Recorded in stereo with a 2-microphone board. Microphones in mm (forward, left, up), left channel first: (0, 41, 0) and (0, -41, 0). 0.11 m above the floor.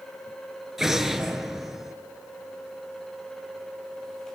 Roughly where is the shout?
I don't hear a shout.